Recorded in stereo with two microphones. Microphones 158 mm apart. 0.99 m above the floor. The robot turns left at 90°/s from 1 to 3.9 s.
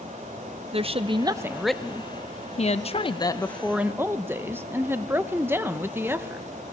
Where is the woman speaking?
120° right, 0.7 m; by 6.4 s 20° right, 0.7 m.